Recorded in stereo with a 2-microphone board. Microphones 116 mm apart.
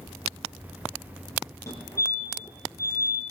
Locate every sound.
1.7 s a fire alarm: 30° left (ahead or behind), 5.5 m